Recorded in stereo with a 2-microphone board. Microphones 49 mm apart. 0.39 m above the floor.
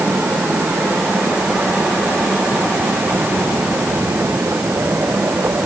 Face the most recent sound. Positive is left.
No sound to turn to.